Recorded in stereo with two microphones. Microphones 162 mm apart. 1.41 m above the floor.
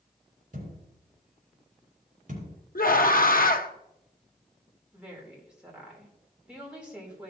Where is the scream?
65° left (ahead or behind), 0.9 m.